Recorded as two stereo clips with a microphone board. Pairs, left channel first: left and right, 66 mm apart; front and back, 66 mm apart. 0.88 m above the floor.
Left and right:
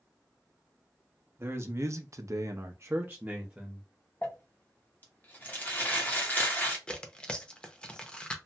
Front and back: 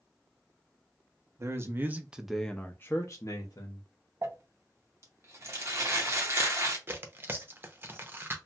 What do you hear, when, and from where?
1.4 s a man speaking: 140° right, 0.7 m; by 3.9 s 20° right, 0.9 m
4.2 s crumpling: 145° left, 0.9 m
6.9 s tearing paper: 155° left, 0.6 m